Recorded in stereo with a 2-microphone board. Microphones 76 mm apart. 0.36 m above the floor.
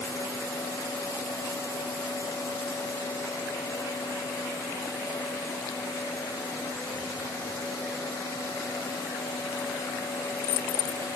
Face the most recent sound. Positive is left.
No sound to turn to.